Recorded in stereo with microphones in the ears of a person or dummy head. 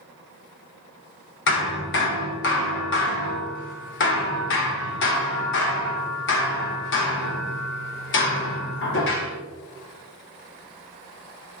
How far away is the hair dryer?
I don't hear a hair dryer.